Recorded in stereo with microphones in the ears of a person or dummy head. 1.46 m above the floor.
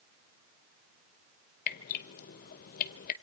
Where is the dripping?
50° left (ahead or behind), 1.1 m.